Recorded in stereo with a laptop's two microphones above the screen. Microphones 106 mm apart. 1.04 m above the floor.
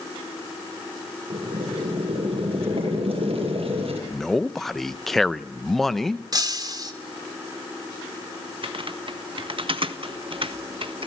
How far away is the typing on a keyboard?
About 1.4 m.